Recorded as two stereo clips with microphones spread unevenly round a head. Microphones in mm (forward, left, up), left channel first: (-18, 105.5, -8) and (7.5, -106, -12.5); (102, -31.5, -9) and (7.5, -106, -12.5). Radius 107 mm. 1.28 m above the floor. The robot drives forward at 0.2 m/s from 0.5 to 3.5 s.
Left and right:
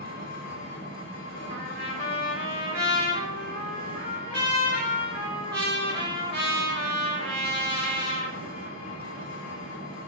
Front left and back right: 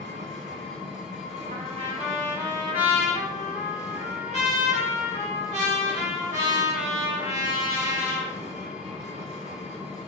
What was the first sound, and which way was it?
An engine running, 55° left.